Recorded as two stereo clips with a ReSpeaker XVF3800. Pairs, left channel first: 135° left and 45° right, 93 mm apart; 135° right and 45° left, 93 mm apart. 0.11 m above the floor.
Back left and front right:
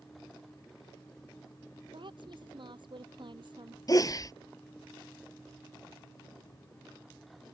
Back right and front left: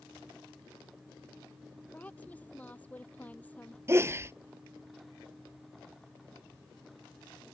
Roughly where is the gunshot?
I don't hear a gunshot.